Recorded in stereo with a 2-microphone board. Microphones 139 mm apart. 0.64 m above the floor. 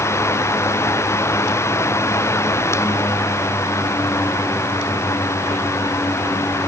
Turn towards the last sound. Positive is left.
No sound to turn to.